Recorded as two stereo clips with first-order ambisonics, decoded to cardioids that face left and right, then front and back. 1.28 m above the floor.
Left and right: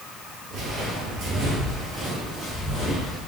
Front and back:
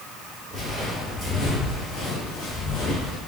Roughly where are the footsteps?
Right.